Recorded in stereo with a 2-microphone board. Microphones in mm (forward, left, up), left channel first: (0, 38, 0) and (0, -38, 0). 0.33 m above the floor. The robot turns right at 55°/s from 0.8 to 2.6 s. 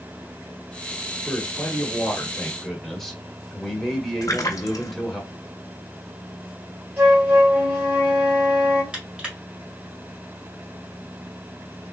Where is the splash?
50° left (ahead or behind), 0.7 m.